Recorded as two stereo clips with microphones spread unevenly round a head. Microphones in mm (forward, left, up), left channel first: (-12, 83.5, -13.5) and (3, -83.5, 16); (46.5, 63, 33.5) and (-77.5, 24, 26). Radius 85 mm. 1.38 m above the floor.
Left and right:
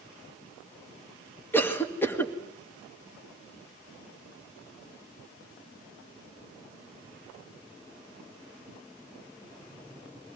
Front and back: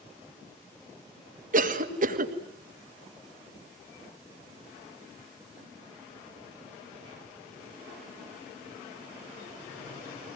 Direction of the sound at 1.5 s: 175° left.